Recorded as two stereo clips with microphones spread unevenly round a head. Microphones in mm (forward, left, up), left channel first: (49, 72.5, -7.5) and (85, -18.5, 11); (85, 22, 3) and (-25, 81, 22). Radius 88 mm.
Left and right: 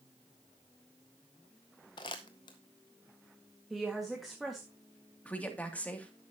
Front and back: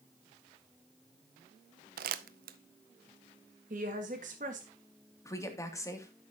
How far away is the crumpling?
About 0.5 m.